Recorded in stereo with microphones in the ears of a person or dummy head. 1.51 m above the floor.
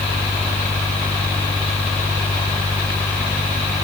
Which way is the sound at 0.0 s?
15° left (ahead or behind).